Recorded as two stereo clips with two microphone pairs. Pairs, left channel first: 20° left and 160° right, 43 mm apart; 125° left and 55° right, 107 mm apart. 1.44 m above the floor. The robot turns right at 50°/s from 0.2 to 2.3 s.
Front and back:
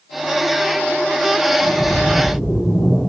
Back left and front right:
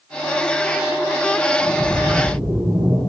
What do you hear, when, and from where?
1.6 s a splash: 35° right, 4 m; by 3.0 s straight ahead, 4 m